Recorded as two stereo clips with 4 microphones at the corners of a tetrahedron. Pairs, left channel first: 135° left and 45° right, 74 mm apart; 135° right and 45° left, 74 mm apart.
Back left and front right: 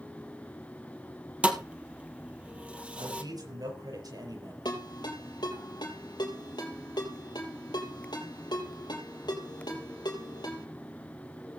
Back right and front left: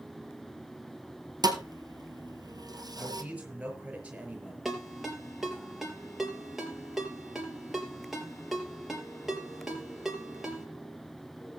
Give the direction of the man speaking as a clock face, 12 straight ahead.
1 o'clock.